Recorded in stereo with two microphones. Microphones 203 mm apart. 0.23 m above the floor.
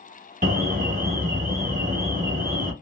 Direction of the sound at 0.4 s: 50° right (ahead or behind).